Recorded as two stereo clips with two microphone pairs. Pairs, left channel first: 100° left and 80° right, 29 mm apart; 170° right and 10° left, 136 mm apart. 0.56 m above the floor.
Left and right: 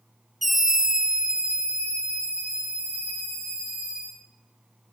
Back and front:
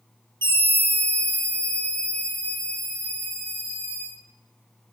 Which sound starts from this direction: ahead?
A scream, at 0.4 s.